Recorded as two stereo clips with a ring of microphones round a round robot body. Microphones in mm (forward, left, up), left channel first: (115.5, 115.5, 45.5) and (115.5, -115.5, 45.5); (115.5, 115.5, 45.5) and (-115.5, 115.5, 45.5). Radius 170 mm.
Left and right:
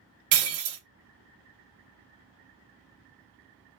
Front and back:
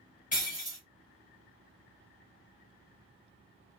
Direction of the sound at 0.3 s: 70° right.